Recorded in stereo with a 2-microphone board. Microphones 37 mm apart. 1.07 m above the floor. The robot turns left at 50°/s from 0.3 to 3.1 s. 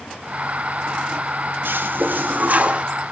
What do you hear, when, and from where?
1.6 s a toilet flushing: 85° right, 0.9 m; by 2.8 s 140° right, 0.9 m